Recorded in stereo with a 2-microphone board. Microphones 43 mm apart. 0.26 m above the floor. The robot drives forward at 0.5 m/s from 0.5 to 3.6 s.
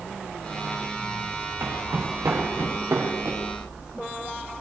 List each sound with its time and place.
1.6 s footsteps: 75° right (ahead or behind), 9.5 m